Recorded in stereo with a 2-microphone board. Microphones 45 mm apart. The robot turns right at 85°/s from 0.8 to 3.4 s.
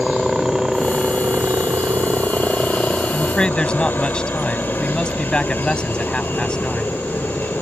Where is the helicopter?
170° right; by 7.6 s 50° left.